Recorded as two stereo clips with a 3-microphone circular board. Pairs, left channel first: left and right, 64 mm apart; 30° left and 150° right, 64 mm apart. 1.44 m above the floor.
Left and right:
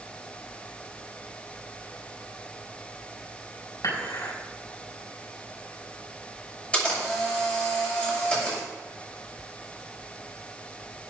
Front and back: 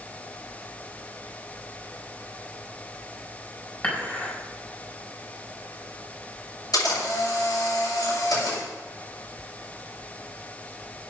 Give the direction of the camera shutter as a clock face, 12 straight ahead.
11 o'clock.